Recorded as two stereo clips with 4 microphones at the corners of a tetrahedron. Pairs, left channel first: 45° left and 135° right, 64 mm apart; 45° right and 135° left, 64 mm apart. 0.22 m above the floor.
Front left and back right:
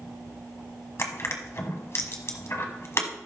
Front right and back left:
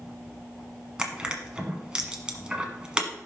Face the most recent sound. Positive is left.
turn(degrees=65)